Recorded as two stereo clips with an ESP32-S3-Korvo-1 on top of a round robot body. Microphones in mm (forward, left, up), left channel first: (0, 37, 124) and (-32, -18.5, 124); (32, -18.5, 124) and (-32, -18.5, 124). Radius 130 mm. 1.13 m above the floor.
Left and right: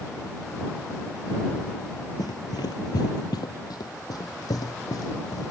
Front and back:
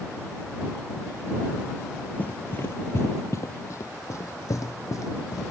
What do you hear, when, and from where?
2.2 s running footsteps: 65° left; by 5.5 s 35° left